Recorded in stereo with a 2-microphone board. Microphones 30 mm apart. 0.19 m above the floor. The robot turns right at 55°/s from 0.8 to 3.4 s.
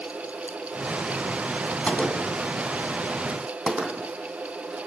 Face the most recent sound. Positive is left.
turn(degrees=-35)  # may be behind; listen again after turning